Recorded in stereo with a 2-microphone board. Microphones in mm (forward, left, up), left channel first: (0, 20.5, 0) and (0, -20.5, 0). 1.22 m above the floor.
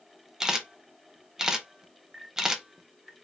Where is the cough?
No cough in this recording.